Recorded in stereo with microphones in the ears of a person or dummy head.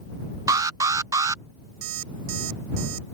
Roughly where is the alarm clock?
Right.